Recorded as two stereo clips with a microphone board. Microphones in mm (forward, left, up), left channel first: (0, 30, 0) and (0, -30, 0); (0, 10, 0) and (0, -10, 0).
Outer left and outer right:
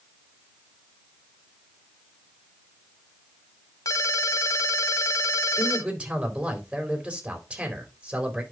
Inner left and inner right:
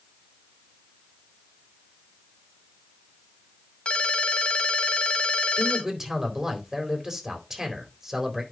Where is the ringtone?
80° left, 1.9 m.